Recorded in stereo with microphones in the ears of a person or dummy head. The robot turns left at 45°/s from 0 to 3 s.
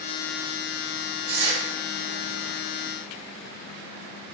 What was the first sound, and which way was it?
Tearing paper, 55° right (ahead or behind).